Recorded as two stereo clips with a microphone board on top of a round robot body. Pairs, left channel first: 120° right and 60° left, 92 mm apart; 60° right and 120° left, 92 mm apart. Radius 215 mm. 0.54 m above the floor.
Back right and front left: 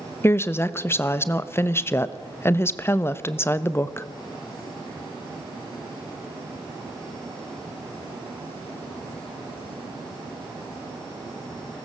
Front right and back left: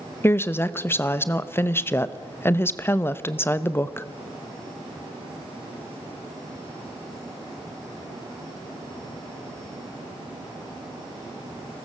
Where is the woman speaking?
95° right, 1.3 m.